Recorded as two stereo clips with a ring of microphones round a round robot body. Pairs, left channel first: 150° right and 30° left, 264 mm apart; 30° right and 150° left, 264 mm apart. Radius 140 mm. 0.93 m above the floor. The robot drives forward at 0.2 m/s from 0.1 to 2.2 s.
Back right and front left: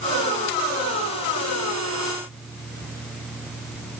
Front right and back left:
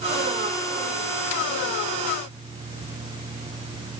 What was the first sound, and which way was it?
Only background noise.